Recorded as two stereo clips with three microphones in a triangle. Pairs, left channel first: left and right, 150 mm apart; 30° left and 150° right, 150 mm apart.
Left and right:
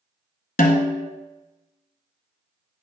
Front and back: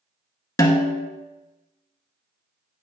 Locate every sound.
0.6 s a snare drum: 95° left, 1.1 m